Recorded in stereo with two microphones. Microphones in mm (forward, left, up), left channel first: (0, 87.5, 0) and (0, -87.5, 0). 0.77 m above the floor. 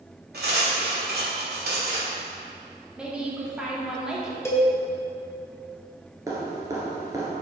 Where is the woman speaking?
5° right (ahead or behind), 1.4 m.